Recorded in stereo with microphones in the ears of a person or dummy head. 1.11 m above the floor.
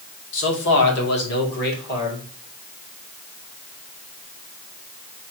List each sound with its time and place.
0.3 s a man speaking: 70° left (ahead or behind), 2 m; by 2.2 s 55° left (ahead or behind), 3 m